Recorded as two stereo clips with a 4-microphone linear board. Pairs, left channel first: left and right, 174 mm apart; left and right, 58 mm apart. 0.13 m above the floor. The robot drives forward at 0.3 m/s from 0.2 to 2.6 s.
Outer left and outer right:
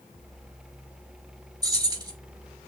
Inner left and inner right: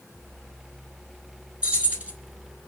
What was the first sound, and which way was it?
Keys jangling, 20° right (ahead or behind).